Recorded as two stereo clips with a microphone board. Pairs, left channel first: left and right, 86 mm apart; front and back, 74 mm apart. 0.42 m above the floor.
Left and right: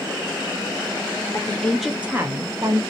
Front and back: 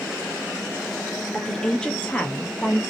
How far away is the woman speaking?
About 0.9 m.